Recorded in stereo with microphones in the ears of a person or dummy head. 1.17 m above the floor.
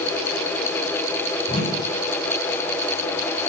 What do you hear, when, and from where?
1.5 s a whoosh: 35° left (ahead or behind), 8.5 m